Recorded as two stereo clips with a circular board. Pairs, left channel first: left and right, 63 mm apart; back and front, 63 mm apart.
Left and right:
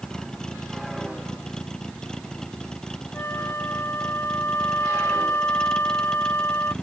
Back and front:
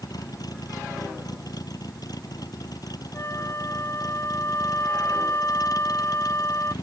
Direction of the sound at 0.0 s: 170° left.